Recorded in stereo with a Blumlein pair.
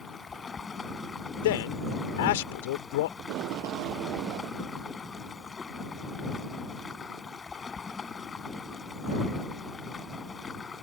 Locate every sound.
0.0 s running water: 15° left
1.4 s a man speaking: 55° left
3.2 s tape being pulled: 40° right